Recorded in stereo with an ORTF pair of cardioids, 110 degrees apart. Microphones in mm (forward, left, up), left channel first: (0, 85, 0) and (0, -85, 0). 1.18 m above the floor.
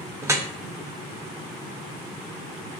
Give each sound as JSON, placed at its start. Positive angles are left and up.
{"t": 0.2, "sound": "dripping", "azimuth_deg": -15, "distance_m": 0.8}